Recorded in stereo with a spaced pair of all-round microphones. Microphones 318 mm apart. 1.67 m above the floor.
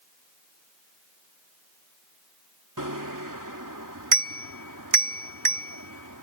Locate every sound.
2.8 s a bicycle bell: 75° right (ahead or behind)